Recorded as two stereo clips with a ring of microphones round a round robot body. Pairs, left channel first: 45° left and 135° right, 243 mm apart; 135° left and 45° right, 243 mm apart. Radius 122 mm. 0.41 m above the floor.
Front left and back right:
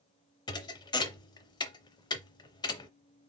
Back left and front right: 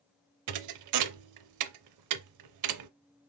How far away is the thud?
About 0.5 m.